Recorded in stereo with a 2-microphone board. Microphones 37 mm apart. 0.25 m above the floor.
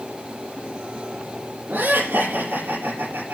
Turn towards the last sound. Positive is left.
turn(degrees=-80)